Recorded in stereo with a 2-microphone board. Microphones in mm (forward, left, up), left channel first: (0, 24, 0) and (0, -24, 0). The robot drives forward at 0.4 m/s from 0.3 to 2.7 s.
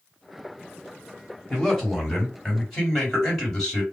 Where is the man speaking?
10° left (ahead or behind), 1.7 m.